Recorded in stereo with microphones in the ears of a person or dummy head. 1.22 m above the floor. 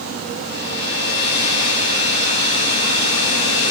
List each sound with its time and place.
0.4 s a hair dryer: 55° left (ahead or behind), 3.5 m